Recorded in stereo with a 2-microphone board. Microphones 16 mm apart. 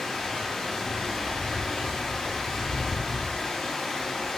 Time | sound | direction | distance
0.0 | running water | 65° left (ahead or behind) | 0.9 m